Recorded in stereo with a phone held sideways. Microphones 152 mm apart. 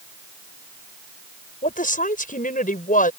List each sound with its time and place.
1.6 s a woman speaking: 65° left (ahead or behind)